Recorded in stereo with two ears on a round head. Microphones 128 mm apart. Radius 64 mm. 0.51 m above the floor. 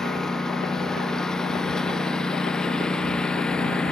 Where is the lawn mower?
5° left (ahead or behind).